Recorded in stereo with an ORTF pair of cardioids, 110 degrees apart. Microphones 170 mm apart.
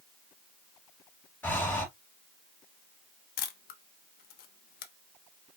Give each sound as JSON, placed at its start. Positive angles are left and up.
{"t": 1.4, "sound": "breathing", "azimuth_deg": 10, "distance_m": 3.0}
{"t": 3.4, "sound": "a camera shutter", "azimuth_deg": 65, "distance_m": 1.1}